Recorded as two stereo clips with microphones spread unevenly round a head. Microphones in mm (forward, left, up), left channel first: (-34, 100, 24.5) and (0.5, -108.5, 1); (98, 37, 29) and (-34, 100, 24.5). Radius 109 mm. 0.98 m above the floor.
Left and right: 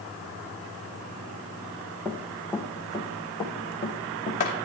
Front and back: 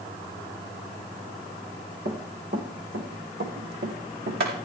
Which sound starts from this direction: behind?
Running footsteps, at 2.0 s.